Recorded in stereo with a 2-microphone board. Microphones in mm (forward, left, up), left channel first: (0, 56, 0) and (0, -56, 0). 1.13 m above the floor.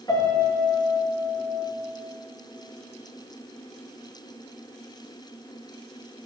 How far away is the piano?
About 2 m.